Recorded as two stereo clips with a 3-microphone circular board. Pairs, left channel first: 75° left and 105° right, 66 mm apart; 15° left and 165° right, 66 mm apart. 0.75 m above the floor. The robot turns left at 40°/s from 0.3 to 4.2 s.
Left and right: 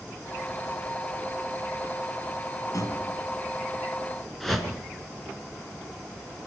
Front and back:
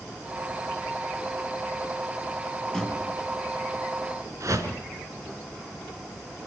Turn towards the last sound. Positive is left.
turn(degrees=160)